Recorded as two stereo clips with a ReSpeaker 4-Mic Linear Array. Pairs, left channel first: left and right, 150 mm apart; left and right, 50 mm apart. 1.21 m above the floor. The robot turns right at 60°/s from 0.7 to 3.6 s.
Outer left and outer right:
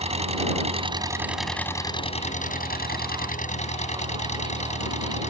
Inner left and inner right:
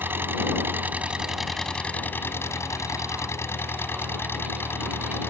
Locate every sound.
0.0 s an engine running: 45° right; by 5.3 s 130° left